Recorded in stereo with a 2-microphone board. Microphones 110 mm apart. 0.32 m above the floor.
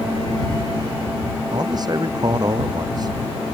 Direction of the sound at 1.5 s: 40° right (ahead or behind).